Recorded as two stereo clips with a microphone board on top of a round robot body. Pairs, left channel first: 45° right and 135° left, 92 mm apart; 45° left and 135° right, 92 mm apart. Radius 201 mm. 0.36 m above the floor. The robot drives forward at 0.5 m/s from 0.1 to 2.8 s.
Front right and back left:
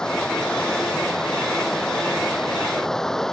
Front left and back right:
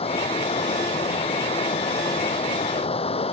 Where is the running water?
40° left.